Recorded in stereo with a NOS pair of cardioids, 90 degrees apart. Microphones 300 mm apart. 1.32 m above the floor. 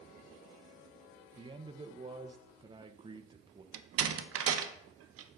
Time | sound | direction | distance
1.4 | a man speaking | 15° right | 0.8 m
3.7 | a door slam | 50° right | 0.8 m